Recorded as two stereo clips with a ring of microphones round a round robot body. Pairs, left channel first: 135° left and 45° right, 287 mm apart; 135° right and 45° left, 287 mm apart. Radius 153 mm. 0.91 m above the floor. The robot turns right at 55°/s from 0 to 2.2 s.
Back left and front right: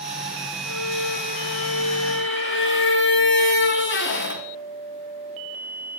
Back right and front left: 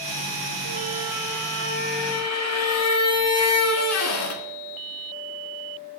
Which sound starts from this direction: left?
A squeak, at 0.7 s.